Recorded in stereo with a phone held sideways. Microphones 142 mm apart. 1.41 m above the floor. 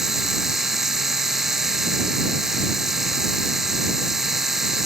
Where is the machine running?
5° right (ahead or behind).